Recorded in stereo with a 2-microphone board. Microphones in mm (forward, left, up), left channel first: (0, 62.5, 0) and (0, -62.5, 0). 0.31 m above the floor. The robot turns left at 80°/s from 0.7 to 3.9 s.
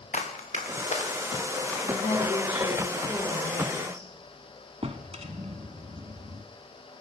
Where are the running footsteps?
85° left, 2.5 m; by 2.8 s 70° right (ahead or behind), 4.5 m.